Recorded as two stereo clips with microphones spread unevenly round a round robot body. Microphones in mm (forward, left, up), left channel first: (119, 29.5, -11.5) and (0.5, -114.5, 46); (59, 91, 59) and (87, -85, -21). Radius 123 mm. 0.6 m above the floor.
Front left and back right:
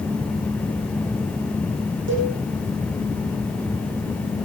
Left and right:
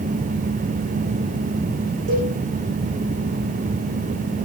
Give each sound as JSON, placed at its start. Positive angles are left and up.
{"t": 2.1, "sound": "a cowbell", "azimuth_deg": -115, "distance_m": 9.0}